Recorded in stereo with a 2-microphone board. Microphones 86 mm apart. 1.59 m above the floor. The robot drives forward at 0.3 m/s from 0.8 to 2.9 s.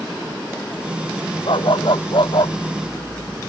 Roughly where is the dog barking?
Left.